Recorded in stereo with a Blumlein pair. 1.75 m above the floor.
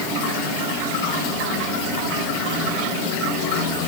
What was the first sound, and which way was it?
Only background noise.